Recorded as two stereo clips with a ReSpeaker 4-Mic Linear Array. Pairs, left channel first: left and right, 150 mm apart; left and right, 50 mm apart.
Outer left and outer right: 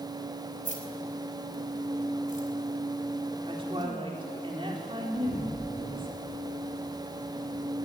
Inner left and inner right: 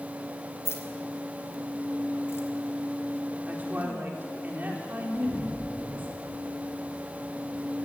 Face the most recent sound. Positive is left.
turn(degrees=-75)  # may be behind; listen again after turning